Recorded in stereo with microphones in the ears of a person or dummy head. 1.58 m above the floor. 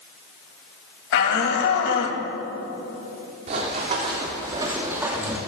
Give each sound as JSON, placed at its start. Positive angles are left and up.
{"t": 1.1, "sound": "a shout", "side_deg": 70, "distance_m": 3.0}
{"t": 3.5, "sound": "running footsteps", "side_deg": -40, "distance_m": 4.0}